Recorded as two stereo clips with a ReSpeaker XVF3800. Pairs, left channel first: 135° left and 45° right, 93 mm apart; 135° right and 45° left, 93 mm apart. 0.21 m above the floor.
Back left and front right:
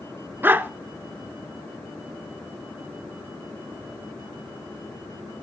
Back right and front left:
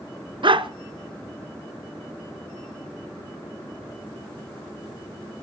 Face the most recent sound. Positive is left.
turn(degrees=25)